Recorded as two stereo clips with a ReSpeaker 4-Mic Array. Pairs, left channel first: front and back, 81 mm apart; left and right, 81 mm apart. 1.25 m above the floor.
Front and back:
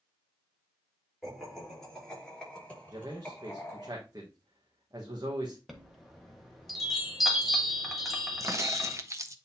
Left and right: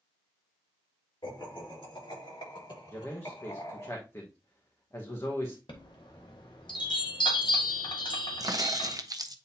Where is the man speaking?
145° left, 1.3 m.